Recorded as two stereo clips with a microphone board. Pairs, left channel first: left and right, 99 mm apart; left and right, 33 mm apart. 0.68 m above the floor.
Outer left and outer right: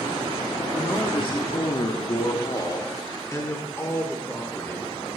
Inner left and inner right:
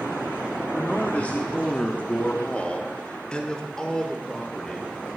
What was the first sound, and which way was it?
A man speaking, 50° left (ahead or behind).